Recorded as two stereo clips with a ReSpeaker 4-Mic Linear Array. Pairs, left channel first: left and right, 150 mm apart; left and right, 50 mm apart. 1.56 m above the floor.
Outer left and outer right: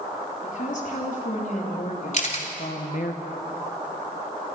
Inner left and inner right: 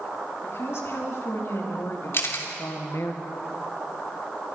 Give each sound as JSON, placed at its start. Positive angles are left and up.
{"t": 0.4, "sound": "a woman speaking", "side_deg": 60, "distance_m": 4.5}
{"t": 2.1, "sound": "a camera shutter", "side_deg": 55, "distance_m": 3.0}